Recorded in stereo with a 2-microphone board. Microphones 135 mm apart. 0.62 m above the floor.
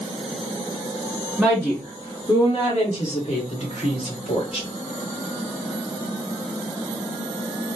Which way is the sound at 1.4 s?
Centre (ahead or behind).